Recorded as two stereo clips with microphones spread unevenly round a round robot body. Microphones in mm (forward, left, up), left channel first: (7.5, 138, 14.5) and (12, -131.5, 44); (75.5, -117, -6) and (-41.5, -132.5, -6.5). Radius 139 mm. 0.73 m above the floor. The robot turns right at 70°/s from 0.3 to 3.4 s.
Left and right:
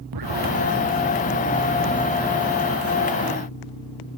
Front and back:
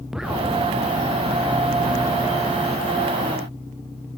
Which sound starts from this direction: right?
An explosion, at 0.1 s.